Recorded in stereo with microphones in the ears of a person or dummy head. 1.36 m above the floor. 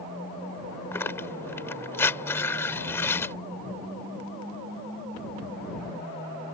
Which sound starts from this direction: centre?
Tearing paper, at 0.9 s.